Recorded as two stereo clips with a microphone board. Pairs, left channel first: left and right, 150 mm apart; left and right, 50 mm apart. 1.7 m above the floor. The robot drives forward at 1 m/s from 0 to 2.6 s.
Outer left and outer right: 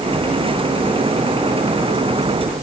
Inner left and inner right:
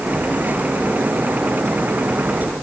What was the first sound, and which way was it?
Only background noise.